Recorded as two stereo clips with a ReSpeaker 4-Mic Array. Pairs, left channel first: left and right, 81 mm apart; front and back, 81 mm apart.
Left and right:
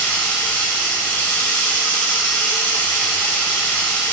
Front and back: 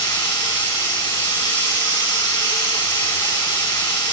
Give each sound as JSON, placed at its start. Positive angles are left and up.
{"t": 0.0, "sound": "running water", "azimuth_deg": 25, "distance_m": 3.5}